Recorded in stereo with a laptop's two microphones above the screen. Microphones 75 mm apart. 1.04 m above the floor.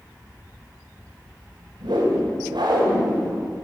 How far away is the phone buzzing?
I don't hear a phone buzzing.